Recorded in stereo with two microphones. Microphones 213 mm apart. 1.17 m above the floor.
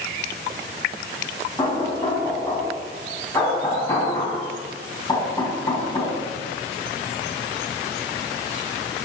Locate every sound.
1.6 s knocking: 15° left (ahead or behind), 6 m